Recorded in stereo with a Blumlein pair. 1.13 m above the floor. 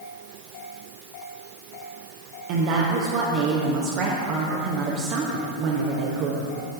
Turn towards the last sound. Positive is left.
turn(degrees=-40)